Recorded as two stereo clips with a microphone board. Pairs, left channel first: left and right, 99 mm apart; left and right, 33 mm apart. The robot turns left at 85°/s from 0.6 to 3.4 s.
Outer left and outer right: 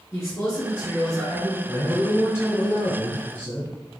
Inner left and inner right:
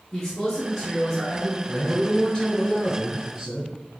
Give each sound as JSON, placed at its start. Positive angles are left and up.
{"t": 0.1, "sound": "a man speaking", "side_deg": 20, "distance_m": 1.8}
{"t": 1.7, "sound": "a man speaking", "side_deg": 25, "distance_m": 1.6}